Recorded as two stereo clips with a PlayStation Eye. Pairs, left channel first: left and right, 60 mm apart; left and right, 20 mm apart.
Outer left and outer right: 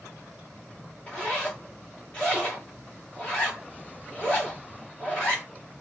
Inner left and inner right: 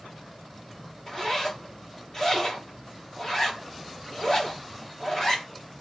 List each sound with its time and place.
1.1 s a zipper: 20° left (ahead or behind), 1.7 m